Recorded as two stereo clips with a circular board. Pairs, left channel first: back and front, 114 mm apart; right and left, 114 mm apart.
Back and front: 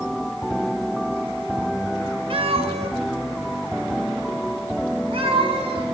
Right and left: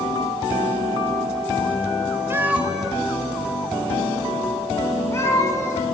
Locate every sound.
2.3 s a cat meowing: 25° left, 1.1 m; by 5.8 s 30° right, 3 m